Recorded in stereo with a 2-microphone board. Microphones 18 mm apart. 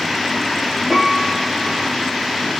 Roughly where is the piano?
Centre.